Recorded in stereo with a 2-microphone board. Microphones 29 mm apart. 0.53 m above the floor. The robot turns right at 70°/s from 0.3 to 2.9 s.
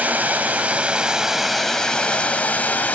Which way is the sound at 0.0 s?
85° right.